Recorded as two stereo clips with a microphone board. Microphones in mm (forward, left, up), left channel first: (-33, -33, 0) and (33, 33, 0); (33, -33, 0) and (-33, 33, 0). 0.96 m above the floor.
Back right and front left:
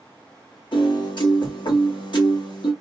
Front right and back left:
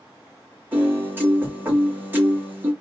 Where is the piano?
160° right, 1.7 m.